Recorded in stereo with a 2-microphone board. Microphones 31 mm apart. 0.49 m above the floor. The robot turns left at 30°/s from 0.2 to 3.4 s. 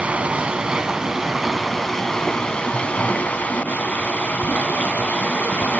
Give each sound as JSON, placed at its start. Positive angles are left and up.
{"t": 0.0, "sound": "running water", "azimuth_deg": -145, "distance_m": 1.7}